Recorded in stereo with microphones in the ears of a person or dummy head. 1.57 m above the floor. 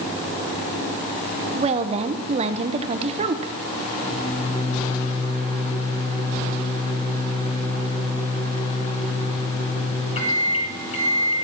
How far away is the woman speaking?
About 0.8 m.